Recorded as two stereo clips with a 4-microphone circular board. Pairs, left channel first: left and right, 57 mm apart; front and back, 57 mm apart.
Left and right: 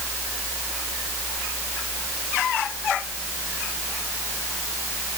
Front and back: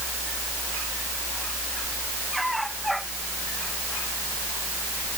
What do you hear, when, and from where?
Only background noise.